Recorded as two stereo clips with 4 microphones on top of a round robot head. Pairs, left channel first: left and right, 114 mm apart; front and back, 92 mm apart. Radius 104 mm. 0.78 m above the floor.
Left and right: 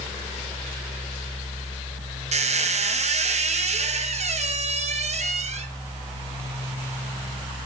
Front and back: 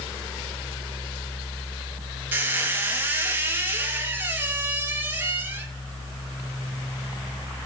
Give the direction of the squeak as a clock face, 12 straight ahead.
4 o'clock.